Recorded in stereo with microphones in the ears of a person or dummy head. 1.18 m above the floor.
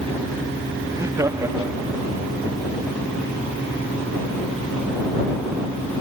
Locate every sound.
0.9 s laughter: 20° right (ahead or behind)